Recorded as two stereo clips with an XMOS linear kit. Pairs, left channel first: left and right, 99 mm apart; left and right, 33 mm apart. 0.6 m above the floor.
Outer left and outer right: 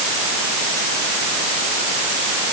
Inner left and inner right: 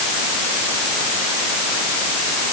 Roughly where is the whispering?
No whispering in this recording.